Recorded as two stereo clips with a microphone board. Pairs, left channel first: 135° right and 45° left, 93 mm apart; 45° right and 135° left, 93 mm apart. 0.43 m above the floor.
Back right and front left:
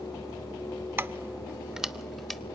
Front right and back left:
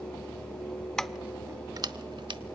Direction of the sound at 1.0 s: 30° left.